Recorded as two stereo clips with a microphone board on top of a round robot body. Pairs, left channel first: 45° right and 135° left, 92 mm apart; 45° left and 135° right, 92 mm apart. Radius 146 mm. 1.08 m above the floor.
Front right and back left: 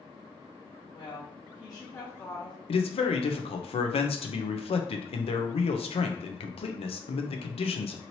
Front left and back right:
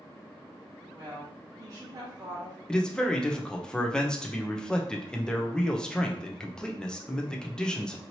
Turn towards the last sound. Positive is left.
turn(degrees=-35)